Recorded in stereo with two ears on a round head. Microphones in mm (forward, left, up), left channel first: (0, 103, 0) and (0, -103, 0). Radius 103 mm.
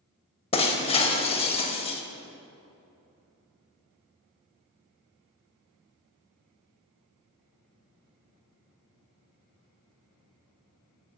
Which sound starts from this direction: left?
Breaking glass, at 0.5 s.